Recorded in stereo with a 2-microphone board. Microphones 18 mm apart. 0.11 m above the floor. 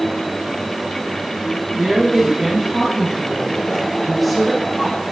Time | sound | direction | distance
1.8 | a woman speaking | 55° right (ahead or behind) | 3 m